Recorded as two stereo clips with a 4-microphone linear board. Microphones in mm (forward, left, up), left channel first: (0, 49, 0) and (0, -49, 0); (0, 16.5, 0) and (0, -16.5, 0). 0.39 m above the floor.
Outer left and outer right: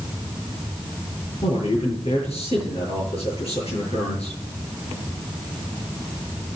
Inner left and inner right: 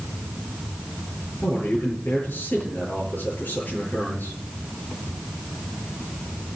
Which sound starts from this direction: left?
A man speaking, at 1.4 s.